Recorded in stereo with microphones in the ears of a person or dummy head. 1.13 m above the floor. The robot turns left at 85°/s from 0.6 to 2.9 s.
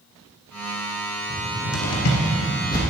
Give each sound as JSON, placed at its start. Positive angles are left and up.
{"t": 1.3, "sound": "a cupboard door", "side_deg": 30, "distance_m": 1.3}